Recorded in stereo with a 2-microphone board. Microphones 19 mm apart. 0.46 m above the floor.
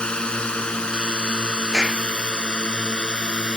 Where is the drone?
65° left (ahead or behind); by 3.6 s 60° left (ahead or behind).